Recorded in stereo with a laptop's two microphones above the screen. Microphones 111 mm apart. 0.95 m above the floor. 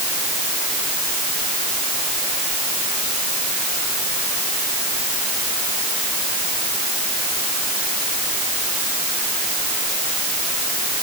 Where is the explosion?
No explosion in this recording.